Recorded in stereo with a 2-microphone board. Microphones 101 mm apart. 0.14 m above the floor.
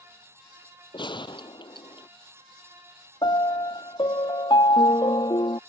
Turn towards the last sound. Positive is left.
turn(degrees=50)  # may be behind; listen again after turning